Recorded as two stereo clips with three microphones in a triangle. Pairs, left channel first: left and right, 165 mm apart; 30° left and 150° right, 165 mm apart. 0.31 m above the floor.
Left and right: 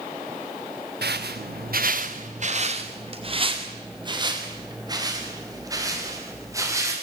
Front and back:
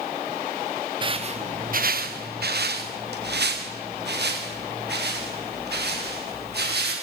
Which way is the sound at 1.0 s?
90° right.